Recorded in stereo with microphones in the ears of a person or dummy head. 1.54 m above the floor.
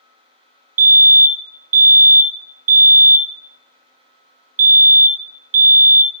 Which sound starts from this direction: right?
A fire alarm, at 0.8 s.